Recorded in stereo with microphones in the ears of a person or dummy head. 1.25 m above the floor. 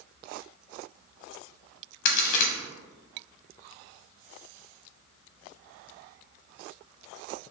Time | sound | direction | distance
2.0 | a crack | 55° left (ahead or behind) | 0.8 m